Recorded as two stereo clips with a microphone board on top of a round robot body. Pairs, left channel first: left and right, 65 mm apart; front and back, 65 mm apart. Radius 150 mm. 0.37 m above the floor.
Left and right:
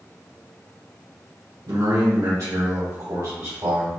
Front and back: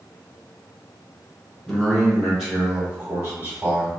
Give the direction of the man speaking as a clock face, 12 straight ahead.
3 o'clock.